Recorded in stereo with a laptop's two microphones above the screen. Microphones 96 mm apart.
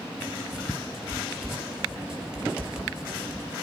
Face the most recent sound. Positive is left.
turn(degrees=-10)  # may be behind; listen again after turning